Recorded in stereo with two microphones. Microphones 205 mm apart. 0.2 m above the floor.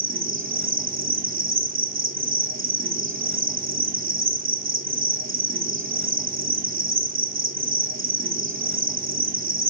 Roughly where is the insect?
Right.